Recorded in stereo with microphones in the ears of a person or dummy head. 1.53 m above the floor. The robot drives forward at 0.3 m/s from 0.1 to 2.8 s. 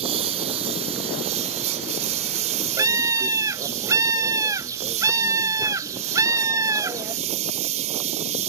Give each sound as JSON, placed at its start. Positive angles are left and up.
{"t": 0.0, "sound": "a lawn mower", "side_deg": -35}
{"t": 2.8, "sound": "a scream", "side_deg": -20}